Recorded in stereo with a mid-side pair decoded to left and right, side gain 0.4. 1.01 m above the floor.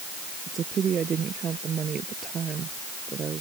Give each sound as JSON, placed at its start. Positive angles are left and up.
{"t": 0.5, "sound": "a woman speaking", "azimuth_deg": -55}